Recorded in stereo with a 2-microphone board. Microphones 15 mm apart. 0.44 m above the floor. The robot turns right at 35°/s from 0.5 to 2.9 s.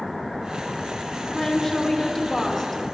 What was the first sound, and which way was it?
A woman speaking, 30° left (ahead or behind).